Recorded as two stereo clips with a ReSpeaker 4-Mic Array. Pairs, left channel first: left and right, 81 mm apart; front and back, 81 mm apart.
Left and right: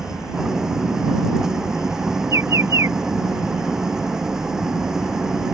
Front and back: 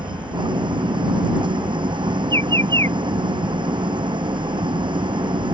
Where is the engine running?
175° right.